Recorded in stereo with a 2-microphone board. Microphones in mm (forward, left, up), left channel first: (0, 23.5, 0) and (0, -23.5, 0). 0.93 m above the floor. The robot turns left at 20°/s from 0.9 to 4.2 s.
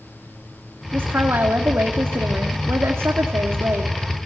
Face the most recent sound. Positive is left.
turn(degrees=-120)